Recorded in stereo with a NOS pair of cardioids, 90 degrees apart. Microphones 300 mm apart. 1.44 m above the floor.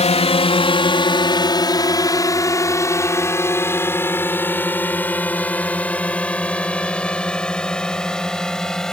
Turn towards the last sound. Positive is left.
turn(degrees=0)